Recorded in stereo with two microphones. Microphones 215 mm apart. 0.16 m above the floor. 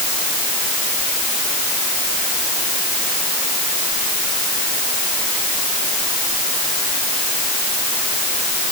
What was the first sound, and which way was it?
Only background noise.